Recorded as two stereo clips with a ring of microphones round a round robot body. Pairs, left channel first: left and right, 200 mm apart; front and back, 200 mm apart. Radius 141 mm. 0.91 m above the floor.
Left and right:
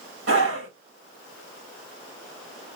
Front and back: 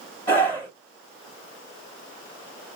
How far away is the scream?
About 5 m.